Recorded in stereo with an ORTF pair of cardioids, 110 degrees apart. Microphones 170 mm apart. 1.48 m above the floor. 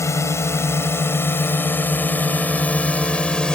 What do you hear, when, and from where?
0.0 s a drone: 15° left; by 3.6 s 5° left